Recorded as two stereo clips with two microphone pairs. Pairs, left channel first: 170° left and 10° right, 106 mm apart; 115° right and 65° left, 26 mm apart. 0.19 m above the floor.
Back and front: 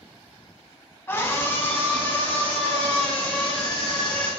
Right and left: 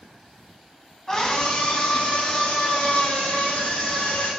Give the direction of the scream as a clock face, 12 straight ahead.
5 o'clock.